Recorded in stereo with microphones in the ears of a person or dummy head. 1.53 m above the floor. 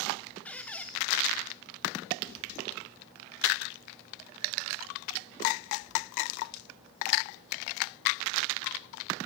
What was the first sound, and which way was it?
A squeak, 5° left (ahead or behind).